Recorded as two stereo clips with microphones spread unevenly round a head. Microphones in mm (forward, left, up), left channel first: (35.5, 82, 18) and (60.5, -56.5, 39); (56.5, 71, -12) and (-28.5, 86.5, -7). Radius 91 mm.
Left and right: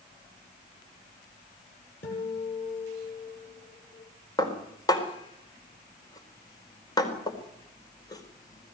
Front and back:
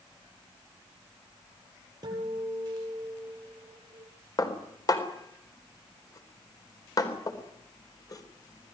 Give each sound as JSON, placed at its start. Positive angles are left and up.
{"t": 2.0, "sound": "a guitar", "azimuth_deg": 130, "distance_m": 8.5}
{"t": 4.4, "sound": "dishes clattering", "azimuth_deg": 35, "distance_m": 4.0}